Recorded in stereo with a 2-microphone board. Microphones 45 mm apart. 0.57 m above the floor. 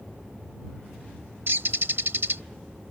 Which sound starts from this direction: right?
A bird, at 1.5 s.